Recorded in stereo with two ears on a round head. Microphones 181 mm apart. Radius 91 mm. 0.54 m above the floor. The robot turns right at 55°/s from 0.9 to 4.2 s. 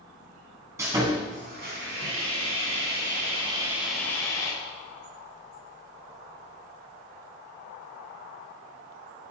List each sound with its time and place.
0.8 s sawing: 165° right, 3.5 m; by 4.5 s 15° left, 3.5 m